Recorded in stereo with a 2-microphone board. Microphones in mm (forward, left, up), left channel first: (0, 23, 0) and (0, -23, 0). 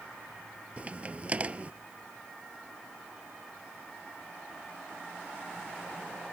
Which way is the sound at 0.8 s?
30° right (ahead or behind).